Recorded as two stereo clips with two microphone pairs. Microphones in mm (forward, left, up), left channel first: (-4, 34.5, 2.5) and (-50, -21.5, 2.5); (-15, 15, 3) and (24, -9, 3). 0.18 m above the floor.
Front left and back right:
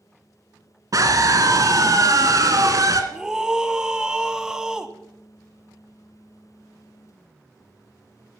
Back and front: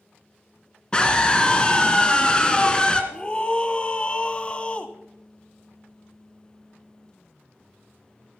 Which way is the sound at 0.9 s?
145° right.